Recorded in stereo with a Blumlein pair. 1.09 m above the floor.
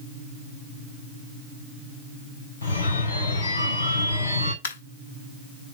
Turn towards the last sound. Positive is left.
turn(degrees=65)